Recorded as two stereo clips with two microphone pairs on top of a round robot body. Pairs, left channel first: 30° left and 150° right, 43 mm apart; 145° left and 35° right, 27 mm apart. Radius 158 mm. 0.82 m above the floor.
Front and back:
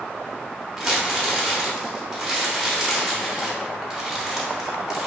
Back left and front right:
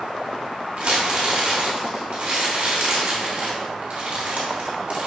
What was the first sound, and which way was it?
Crumpling, 70° right.